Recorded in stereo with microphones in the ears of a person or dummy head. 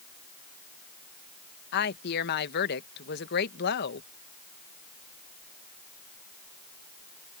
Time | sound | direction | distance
1.7 | a woman speaking | 55° left (ahead or behind) | ?